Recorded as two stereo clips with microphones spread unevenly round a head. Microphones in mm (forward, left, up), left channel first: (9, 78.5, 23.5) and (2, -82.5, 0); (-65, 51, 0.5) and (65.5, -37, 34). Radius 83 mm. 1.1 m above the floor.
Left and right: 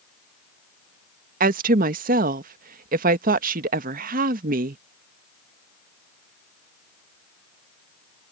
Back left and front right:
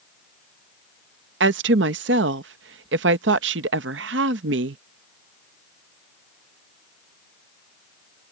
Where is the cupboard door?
No cupboard door in this recording.